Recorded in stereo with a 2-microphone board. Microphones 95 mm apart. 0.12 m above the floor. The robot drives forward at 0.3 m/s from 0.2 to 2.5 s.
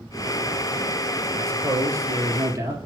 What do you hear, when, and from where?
1.4 s a man speaking: 35° right (ahead or behind), 1.7 m; by 2.8 s 30° right (ahead or behind), 1.9 m